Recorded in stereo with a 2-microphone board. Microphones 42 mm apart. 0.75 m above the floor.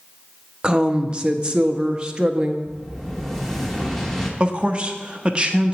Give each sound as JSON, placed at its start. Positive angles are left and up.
{"t": 0.6, "sound": "a woman speaking", "side_deg": -20, "distance_m": 0.5}
{"t": 2.6, "sound": "an explosion", "side_deg": 5, "distance_m": 1.0}
{"t": 4.4, "sound": "a man speaking", "side_deg": -25, "distance_m": 0.5}